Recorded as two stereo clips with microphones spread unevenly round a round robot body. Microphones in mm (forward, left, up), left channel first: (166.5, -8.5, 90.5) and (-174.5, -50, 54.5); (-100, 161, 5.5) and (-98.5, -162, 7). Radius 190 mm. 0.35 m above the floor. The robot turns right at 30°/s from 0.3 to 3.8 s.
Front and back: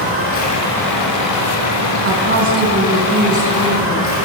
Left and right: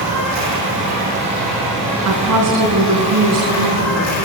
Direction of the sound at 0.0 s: 45° right.